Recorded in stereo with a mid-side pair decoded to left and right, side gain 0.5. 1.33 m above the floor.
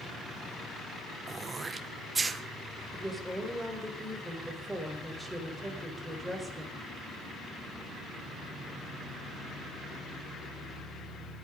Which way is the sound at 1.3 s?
30° right.